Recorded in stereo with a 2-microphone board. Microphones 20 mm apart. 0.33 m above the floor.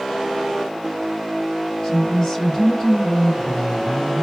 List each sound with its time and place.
1.8 s a woman speaking: 30° left (ahead or behind), 2 m